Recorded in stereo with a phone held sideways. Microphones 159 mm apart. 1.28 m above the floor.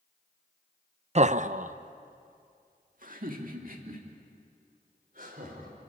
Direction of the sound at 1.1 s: 45° right (ahead or behind).